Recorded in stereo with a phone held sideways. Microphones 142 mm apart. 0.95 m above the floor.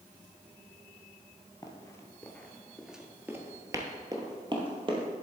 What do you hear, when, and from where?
1.6 s running footsteps: 25° left (ahead or behind), 1.1 m; by 5.1 s 35° right (ahead or behind), 1.5 m